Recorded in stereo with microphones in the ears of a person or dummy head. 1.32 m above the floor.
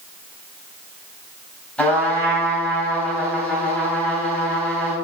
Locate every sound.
1.8 s a trumpet: 5° left (ahead or behind), 3.5 m